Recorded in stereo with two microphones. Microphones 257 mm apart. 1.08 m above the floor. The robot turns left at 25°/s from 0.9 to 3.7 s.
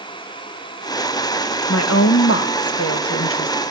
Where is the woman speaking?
105° left, 1.2 m; by 3.5 s 55° left, 1.2 m.